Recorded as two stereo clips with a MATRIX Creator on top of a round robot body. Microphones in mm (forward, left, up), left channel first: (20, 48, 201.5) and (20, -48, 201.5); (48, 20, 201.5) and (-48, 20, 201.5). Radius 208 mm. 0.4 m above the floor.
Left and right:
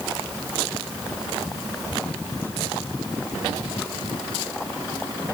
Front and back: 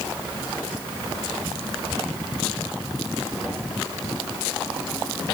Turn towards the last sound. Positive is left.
No sound to turn to.